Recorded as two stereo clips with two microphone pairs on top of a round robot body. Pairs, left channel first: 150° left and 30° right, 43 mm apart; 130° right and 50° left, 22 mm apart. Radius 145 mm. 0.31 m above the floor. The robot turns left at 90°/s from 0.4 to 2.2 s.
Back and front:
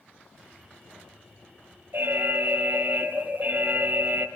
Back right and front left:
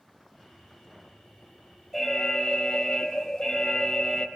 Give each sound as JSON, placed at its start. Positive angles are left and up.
{"t": 1.9, "sound": "an alarm", "azimuth_deg": -50, "distance_m": 4.0}